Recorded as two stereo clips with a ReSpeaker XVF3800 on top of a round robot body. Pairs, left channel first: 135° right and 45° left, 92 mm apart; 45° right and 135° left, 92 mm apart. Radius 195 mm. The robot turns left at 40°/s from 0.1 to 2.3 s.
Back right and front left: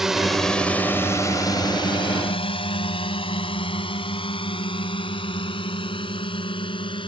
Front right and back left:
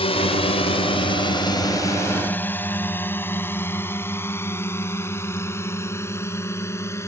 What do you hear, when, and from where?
0.0 s a drone: 40° right; by 7.1 s 105° right